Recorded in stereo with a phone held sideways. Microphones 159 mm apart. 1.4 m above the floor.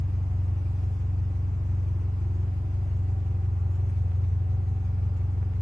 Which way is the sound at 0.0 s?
55° right (ahead or behind).